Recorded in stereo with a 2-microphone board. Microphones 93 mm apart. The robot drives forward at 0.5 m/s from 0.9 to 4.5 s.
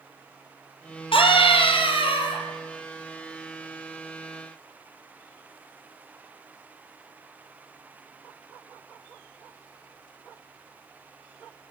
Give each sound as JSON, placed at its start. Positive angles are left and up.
{"t": 1.1, "sound": "a scream", "side_deg": 70, "distance_m": 5.5}